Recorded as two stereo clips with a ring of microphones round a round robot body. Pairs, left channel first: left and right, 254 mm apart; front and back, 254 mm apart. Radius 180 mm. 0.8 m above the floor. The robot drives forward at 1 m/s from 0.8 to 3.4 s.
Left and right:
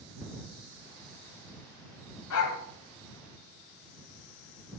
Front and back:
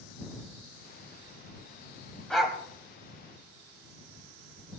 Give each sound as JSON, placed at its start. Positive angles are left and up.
{"t": 2.3, "sound": "a dog barking", "azimuth_deg": 85, "distance_m": 1.9}